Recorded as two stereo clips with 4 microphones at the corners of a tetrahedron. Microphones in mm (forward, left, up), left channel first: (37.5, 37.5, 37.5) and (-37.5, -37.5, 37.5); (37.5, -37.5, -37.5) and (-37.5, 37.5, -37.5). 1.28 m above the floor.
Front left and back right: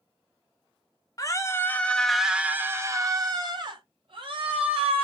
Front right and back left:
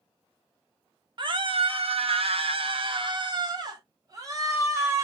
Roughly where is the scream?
Left.